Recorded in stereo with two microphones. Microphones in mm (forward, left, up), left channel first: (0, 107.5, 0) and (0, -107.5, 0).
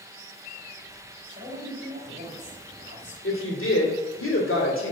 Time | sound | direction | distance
1.3 | a man speaking | 35° right (ahead or behind) | 2.5 m
3.2 | a woman speaking | 75° left (ahead or behind) | 2 m